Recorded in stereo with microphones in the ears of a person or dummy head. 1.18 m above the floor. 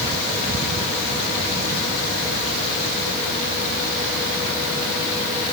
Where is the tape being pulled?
No tape being pulled in this recording.